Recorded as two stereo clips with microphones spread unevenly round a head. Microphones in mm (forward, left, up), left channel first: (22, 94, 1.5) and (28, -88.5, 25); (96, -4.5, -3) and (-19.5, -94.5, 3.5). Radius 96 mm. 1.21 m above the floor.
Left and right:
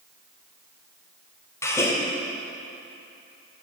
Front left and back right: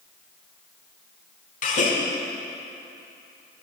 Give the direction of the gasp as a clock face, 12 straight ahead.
12 o'clock.